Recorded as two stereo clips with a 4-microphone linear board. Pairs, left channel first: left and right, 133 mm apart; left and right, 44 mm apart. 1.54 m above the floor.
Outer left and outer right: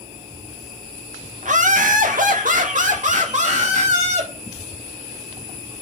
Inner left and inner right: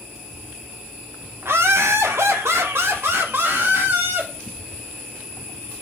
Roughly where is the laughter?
Right.